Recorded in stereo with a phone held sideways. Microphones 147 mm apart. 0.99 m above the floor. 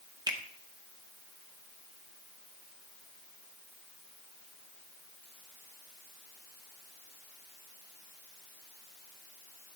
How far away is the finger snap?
About 0.9 m.